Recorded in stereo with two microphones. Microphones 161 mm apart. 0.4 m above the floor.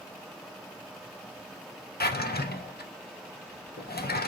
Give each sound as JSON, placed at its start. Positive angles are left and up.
{"t": 2.0, "sound": "a drawer", "side_deg": 75, "distance_m": 0.6}